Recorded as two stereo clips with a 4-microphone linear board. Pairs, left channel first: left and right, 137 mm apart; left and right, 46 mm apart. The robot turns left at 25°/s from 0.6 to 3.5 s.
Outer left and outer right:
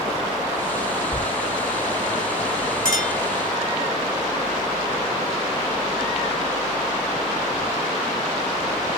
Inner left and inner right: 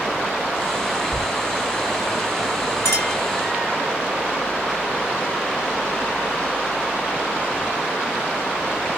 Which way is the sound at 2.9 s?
70° left (ahead or behind).